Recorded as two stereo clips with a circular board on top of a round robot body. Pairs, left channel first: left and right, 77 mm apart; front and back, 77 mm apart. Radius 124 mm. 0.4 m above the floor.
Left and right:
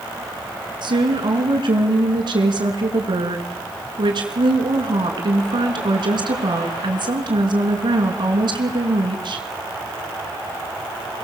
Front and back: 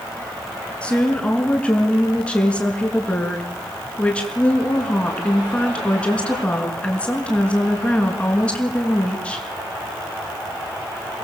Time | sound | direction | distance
0.8 | a woman speaking | 75° right | 5.5 m